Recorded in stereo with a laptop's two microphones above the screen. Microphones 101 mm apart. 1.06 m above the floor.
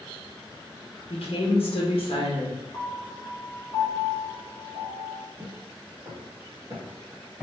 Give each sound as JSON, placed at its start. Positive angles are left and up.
{"t": 1.1, "sound": "a woman speaking", "side_deg": 70, "distance_m": 1.1}
{"t": 2.7, "sound": "a piano", "side_deg": 40, "distance_m": 0.9}
{"t": 5.4, "sound": "footsteps", "side_deg": -45, "distance_m": 1.7}